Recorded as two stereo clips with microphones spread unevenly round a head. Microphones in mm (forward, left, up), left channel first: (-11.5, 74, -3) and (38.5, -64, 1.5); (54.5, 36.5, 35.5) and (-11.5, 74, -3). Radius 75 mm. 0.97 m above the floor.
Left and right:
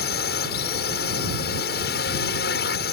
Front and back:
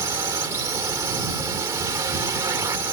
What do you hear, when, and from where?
0.0 s a drone: 110° left